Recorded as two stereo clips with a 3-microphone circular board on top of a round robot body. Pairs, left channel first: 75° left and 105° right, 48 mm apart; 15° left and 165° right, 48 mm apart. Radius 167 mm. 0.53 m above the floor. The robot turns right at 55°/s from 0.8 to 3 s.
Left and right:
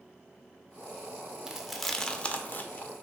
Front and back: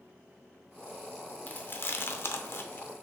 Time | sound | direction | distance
1.5 | chewing | 30° right | 0.6 m